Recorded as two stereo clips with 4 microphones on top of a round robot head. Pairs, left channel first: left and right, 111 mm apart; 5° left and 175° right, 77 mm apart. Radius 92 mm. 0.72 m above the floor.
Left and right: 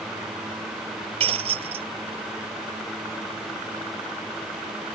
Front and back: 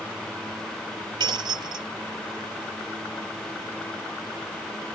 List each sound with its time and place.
1.2 s breaking glass: 130° right